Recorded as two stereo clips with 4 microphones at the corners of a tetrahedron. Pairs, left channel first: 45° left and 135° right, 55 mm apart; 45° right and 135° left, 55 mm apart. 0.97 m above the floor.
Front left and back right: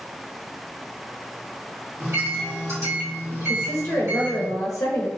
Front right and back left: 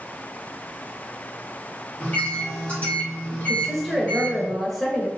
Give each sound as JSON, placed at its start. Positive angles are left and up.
{"t": 2.0, "sound": "a microwave", "azimuth_deg": -105, "distance_m": 1.1}
{"t": 3.5, "sound": "a woman speaking", "azimuth_deg": 40, "distance_m": 0.6}